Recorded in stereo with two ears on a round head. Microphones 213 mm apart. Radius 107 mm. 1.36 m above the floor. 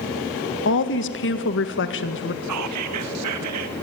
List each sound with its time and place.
0.7 s a woman speaking: 55° left (ahead or behind), 1.8 m
2.4 s whispering: 75° right (ahead or behind), 2 m